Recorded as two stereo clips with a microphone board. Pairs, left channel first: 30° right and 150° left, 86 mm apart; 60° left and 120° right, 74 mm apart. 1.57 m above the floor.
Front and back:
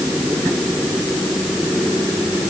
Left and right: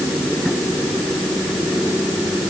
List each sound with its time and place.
Only background noise.